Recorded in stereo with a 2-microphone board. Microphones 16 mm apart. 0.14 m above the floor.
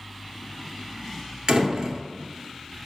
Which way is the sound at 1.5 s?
55° right (ahead or behind).